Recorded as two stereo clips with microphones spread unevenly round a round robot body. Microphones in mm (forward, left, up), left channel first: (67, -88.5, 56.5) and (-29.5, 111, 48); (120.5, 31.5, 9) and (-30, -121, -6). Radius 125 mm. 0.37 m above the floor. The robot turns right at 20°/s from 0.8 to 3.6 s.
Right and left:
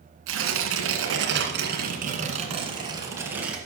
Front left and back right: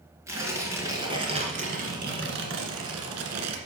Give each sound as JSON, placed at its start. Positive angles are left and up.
{"t": 0.3, "sound": "tearing paper", "azimuth_deg": 145, "distance_m": 1.7}